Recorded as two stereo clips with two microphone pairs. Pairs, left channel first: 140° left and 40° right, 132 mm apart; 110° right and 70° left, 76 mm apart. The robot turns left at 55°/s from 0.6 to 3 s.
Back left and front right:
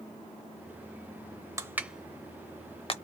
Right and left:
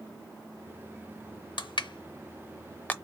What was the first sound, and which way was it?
Crushing, 105° right.